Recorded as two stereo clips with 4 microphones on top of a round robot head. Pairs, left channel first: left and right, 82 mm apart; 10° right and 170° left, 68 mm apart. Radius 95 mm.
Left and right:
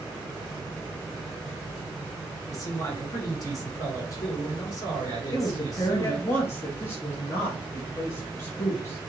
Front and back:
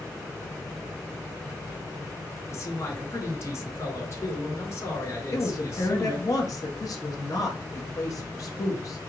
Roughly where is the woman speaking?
Ahead left.